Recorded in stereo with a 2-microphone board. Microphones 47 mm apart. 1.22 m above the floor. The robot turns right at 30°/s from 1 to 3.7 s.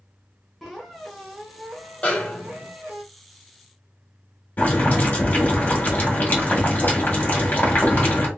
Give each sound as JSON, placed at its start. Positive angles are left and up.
{"t": 0.6, "sound": "a squeak", "azimuth_deg": 180, "distance_m": 1.2}
{"t": 2.0, "sound": "a snare drum", "side_deg": 30, "distance_m": 1.1}
{"t": 4.6, "sound": "boiling", "side_deg": 40, "distance_m": 1.7}